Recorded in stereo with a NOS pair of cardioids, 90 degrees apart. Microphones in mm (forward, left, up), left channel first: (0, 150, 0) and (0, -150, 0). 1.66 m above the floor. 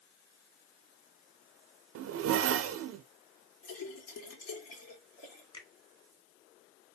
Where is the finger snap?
15° left, 1.8 m.